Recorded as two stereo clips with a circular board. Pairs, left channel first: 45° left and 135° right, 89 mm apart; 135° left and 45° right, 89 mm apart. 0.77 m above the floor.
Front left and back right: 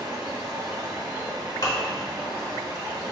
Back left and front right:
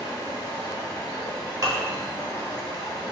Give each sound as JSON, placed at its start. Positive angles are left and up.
{"t": 0.0, "sound": "running water", "azimuth_deg": 180, "distance_m": 0.8}
{"t": 1.6, "sound": "dishes clattering", "azimuth_deg": 5, "distance_m": 0.8}